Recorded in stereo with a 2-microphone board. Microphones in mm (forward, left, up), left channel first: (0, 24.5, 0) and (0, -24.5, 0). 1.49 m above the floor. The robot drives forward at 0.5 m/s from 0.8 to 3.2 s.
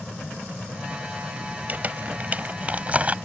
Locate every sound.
1.7 s crumpling: 35° right (ahead or behind); by 3.1 s 30° right (ahead or behind)